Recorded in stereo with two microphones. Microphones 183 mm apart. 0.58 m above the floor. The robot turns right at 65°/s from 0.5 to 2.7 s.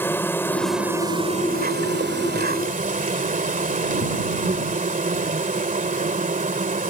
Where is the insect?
165° left; by 6.9 s 50° right.